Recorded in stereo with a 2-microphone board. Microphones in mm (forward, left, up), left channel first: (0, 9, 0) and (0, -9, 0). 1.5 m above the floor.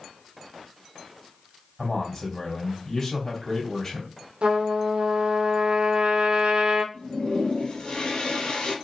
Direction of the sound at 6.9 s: 65° left (ahead or behind).